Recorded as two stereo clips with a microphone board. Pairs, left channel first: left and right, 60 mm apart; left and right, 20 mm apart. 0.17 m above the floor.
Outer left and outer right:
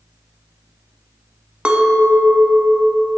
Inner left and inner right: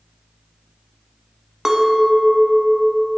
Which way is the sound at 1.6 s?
20° right (ahead or behind).